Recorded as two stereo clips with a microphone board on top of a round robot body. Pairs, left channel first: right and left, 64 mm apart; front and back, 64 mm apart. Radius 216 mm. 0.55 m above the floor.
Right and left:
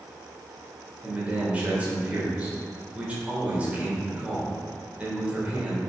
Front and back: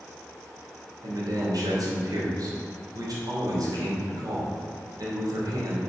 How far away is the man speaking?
About 3 m.